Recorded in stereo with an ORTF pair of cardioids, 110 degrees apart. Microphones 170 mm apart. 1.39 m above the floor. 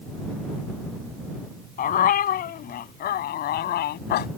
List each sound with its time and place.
1.8 s a dog barking: 55° left; by 4.3 s 75° left